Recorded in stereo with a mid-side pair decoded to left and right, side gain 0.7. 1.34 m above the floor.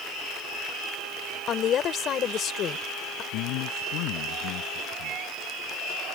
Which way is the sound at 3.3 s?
65° left.